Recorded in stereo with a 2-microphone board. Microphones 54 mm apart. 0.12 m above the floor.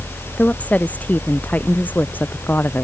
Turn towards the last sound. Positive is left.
turn(degrees=35)  # may be behind; listen again after turning